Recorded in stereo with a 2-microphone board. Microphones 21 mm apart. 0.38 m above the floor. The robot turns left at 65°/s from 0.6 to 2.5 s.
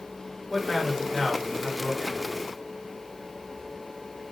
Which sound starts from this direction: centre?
A man speaking, at 0.5 s.